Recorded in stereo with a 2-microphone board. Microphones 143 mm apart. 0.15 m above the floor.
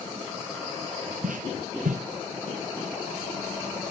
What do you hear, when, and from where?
1.2 s footsteps: 85° right, 1.2 m